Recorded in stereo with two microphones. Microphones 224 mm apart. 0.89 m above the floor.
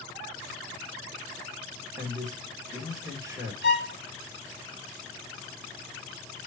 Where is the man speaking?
15° right (ahead or behind), 3 m.